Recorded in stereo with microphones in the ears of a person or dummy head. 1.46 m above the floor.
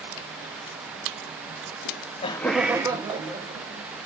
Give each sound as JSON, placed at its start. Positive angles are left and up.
{"t": 1.9, "sound": "laughter", "side_deg": 80, "distance_m": 0.7}